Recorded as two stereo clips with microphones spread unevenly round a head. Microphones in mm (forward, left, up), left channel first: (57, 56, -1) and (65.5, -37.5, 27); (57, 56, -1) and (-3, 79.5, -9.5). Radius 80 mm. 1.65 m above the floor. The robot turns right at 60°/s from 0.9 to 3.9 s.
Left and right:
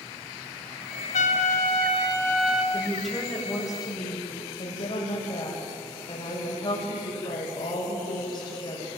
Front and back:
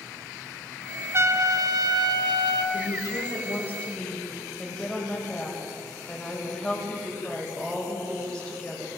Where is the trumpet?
110° left, 1.7 m; by 2.6 s 160° right, 1.7 m.